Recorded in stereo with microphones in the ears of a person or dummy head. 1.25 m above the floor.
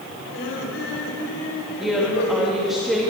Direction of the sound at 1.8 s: Centre (ahead or behind).